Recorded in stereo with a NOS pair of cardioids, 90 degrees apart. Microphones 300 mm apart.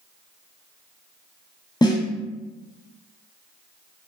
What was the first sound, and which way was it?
A snare drum, 15° left.